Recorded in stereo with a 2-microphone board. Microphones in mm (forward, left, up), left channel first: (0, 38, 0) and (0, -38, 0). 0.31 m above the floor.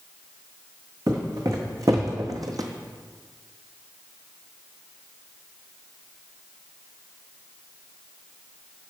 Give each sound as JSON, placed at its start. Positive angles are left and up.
{"t": 1.1, "sound": "footsteps", "side_deg": -45, "distance_m": 1.5}